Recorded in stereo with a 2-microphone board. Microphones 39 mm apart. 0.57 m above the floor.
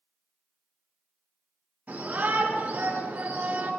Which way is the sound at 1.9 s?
35° right (ahead or behind).